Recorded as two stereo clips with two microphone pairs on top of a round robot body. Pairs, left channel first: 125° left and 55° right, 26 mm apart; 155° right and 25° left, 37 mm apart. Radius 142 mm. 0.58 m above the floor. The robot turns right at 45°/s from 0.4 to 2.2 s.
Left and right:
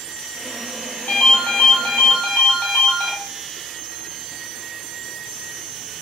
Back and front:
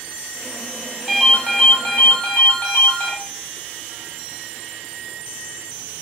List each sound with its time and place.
1.1 s a ringtone: 120° left, 0.6 m; by 3.1 s 170° left, 0.6 m